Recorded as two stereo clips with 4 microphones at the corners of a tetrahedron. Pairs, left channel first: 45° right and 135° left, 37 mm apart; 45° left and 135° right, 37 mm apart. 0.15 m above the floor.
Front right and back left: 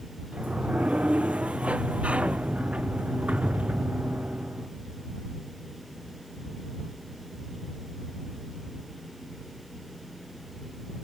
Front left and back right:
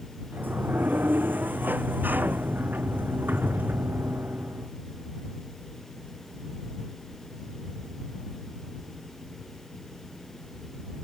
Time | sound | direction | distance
0.3 | a sliding door | 170° right | ?